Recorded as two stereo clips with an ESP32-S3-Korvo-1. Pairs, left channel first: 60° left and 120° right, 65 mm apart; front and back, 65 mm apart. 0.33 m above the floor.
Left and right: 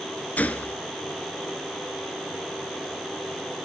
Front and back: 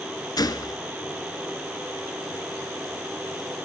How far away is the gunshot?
About 0.9 m.